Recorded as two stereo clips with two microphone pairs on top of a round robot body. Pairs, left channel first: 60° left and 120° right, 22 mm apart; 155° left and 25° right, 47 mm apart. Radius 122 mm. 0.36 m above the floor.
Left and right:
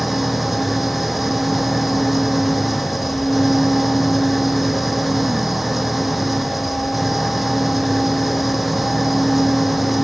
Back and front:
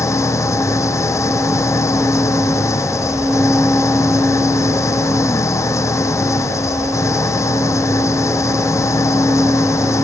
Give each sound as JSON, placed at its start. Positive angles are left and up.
{"t": 0.0, "sound": "an engine running", "azimuth_deg": 150}